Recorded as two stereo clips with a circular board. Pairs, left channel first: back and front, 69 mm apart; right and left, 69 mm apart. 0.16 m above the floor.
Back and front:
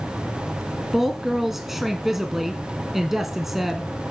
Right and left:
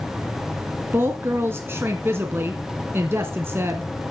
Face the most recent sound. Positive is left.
turn(degrees=85)